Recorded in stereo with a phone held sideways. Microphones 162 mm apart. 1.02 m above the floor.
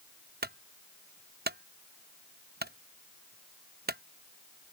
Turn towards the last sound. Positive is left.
turn(degrees=-75)  # may be behind; listen again after turning